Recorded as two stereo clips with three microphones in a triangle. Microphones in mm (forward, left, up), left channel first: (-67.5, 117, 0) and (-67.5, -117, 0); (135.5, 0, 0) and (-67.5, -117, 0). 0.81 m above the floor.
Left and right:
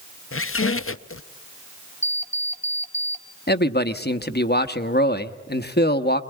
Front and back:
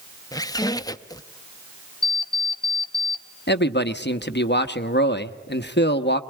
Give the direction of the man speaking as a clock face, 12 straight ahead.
10 o'clock.